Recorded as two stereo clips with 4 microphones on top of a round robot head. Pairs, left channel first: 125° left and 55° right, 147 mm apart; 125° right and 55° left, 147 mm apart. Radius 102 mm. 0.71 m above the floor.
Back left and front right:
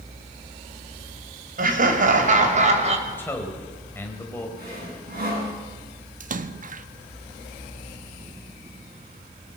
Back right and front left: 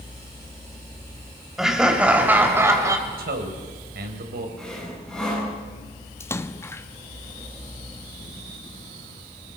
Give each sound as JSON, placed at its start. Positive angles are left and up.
{"t": 1.6, "sound": "laughter", "azimuth_deg": -30, "distance_m": 3.5}
{"t": 3.1, "sound": "a man speaking", "azimuth_deg": 45, "distance_m": 3.5}
{"t": 4.6, "sound": "sawing", "azimuth_deg": -40, "distance_m": 9.0}
{"t": 6.2, "sound": "a splash", "azimuth_deg": -55, "distance_m": 1.0}